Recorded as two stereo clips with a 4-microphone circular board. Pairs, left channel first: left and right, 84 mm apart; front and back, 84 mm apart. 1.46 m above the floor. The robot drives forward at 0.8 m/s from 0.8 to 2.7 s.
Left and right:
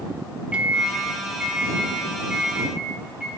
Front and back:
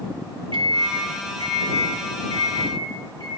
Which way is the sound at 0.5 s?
165° right.